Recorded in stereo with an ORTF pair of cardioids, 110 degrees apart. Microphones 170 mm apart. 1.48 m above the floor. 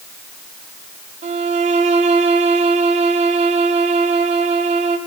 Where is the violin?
45° right, 4 m.